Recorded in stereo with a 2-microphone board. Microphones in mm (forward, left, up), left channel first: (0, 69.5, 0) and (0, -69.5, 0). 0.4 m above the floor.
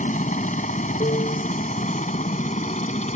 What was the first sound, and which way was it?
A helicopter, 65° left (ahead or behind).